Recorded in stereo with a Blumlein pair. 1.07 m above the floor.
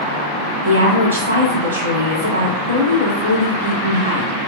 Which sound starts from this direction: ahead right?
A woman speaking, at 0.6 s.